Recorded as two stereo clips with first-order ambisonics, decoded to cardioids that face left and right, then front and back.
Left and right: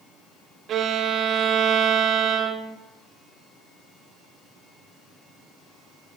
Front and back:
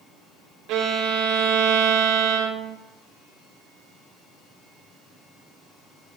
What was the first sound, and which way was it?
A violin, 145° right.